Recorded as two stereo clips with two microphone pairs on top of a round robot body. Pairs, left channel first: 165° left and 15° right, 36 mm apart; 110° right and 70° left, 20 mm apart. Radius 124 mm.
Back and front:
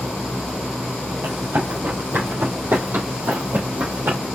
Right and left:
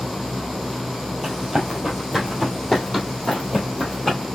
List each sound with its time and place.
1.2 s running footsteps: 5° right, 2.5 m; by 4.2 s 50° right, 3 m